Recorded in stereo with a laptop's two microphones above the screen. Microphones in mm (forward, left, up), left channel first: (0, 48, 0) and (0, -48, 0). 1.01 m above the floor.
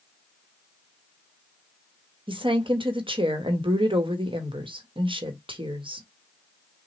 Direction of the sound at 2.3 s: 70° right (ahead or behind).